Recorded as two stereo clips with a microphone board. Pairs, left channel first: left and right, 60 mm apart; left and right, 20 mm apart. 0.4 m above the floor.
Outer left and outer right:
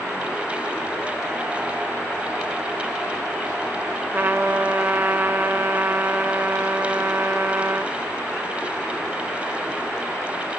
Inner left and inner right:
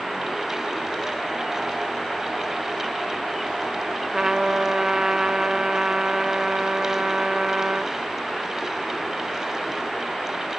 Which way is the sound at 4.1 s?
35° right (ahead or behind).